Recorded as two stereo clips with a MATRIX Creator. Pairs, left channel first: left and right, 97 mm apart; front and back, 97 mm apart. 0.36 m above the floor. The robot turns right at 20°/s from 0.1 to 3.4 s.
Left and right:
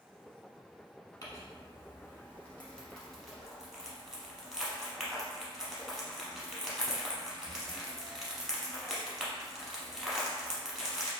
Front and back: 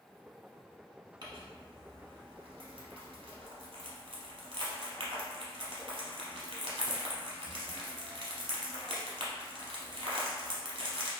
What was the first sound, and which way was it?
Crumpling, 140° left.